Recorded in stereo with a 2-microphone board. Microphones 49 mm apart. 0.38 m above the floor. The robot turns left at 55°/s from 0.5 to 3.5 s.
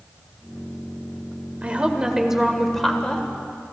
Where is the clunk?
No clunk in this recording.